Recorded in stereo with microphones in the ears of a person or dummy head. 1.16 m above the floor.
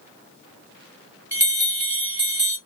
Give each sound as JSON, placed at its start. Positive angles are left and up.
{"t": 1.3, "sound": "a bell", "side_deg": -15, "distance_m": 1.6}